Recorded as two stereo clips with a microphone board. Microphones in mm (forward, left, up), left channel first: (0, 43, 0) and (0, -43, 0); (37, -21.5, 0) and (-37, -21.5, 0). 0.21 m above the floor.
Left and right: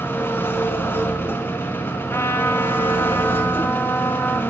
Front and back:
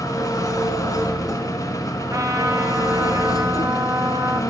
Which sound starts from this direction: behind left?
A trumpet, at 2.1 s.